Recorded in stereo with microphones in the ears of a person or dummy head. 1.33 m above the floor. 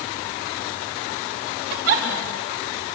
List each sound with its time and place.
1.7 s a giggle: 60° right (ahead or behind), 4 m